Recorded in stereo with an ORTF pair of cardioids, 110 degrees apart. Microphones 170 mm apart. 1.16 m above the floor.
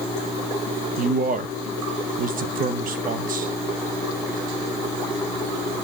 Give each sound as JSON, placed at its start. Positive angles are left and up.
{"t": 1.0, "sound": "a man speaking", "azimuth_deg": -55, "distance_m": 1.2}